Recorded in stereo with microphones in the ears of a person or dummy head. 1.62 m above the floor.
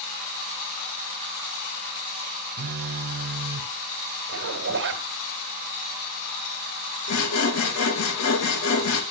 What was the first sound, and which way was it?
A phone buzzing, 55° right (ahead or behind).